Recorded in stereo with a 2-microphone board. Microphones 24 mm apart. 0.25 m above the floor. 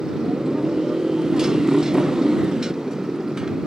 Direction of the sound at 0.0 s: 30° right (ahead or behind).